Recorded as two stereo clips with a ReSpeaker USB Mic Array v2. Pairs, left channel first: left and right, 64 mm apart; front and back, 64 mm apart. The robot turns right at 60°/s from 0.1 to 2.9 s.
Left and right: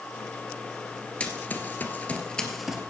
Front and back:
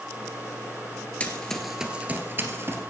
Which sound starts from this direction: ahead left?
Running footsteps, at 1.2 s.